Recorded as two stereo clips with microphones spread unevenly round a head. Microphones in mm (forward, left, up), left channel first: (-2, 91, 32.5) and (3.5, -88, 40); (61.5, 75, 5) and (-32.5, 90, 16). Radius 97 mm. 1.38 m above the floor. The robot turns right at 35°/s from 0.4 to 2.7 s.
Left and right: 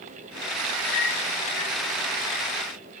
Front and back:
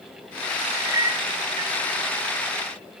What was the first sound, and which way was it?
A clink, 110° left.